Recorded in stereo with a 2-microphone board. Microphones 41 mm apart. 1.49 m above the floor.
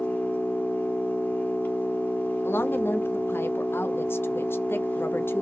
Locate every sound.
0.0 s an engine running: 50° left (ahead or behind), 1.6 m
2.4 s a woman speaking: 65° left (ahead or behind), 0.7 m